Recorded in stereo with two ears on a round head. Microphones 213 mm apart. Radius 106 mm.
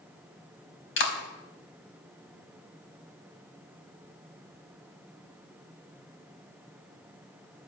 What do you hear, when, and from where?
1.0 s a clap: 55° left (ahead or behind), 4 m